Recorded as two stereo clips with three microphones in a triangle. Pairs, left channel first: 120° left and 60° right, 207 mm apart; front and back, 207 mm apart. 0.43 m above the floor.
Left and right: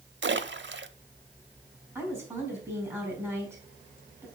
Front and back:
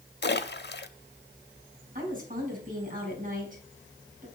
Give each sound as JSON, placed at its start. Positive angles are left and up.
{"t": 0.2, "sound": "a splash", "azimuth_deg": -35, "distance_m": 0.7}
{"t": 1.9, "sound": "a woman speaking", "azimuth_deg": -135, "distance_m": 4.5}